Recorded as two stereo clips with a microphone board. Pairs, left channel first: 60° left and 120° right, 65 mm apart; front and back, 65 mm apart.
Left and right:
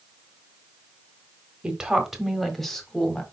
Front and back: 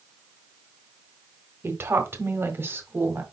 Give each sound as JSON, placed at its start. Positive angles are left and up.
{"t": 1.6, "sound": "a woman speaking", "azimuth_deg": 170, "distance_m": 1.4}